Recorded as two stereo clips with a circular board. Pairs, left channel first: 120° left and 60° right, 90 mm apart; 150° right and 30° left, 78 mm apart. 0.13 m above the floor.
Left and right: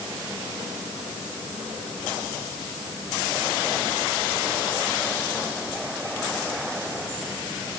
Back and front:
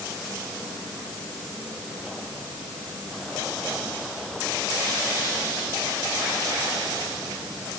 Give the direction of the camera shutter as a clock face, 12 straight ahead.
I don't hear a camera shutter.